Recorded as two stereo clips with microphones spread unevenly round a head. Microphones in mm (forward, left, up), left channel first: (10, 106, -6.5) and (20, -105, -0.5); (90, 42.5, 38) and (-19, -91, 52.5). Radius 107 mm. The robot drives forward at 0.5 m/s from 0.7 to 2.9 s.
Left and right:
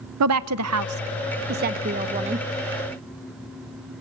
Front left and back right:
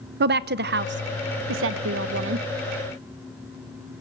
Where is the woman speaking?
105° right, 0.6 m; by 2.5 s 150° right, 1.2 m.